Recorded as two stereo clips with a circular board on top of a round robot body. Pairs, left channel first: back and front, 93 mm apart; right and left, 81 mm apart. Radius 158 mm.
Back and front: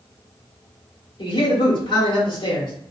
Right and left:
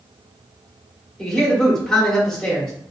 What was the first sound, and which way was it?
A man speaking, 170° right.